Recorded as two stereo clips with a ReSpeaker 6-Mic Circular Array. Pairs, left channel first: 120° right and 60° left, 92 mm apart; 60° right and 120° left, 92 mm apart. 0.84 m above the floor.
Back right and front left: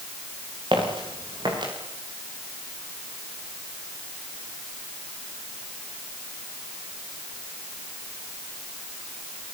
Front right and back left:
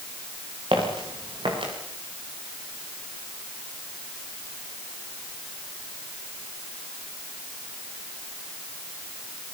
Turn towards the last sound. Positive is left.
turn(degrees=95)